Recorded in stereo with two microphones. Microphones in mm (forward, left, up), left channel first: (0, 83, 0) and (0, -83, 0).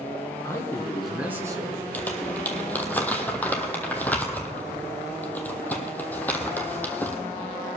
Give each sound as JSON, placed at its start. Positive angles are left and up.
{"t": 0.4, "sound": "a man speaking", "side_deg": 20, "distance_m": 2.0}
{"t": 1.9, "sound": "crumpling", "side_deg": 10, "distance_m": 1.5}